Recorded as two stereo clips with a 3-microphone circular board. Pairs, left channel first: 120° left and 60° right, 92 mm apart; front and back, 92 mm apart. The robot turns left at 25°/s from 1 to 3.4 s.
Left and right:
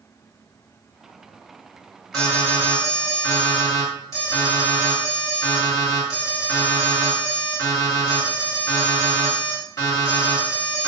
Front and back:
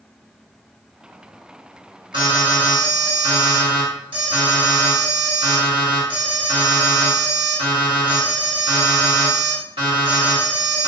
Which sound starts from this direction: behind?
An alarm, at 2.1 s.